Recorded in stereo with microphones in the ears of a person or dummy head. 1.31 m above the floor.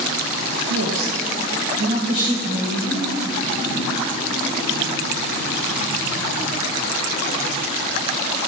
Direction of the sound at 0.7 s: 85° right.